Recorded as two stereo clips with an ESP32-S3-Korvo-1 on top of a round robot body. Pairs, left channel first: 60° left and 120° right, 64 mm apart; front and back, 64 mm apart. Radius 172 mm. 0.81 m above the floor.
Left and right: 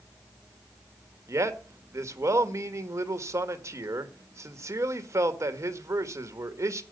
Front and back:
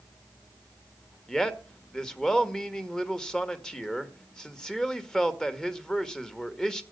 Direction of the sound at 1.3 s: 80° right.